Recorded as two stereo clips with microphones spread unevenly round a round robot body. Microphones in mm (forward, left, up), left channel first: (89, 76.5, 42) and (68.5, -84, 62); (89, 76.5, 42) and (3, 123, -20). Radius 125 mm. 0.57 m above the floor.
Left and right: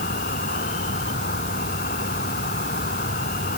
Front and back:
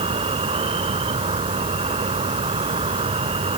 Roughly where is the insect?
Behind left.